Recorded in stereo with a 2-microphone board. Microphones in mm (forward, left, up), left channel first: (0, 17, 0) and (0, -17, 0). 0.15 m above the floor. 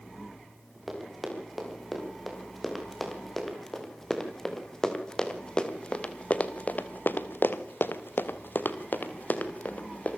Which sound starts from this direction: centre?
Running footsteps, at 0.9 s.